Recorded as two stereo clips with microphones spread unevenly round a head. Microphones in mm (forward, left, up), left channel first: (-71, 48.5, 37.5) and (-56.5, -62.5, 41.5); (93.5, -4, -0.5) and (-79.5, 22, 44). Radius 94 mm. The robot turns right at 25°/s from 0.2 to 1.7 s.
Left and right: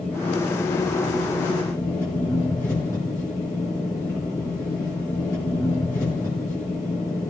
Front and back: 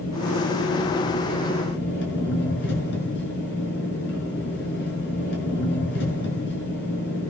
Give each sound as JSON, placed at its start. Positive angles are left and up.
{"t": 0.0, "sound": "an engine running", "azimuth_deg": -15, "distance_m": 6.0}